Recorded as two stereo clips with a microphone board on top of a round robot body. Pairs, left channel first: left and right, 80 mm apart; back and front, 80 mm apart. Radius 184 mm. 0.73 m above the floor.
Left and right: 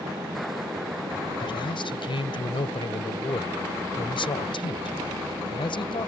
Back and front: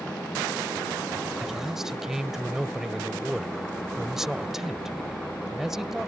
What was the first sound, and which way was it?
A man speaking, 85° left.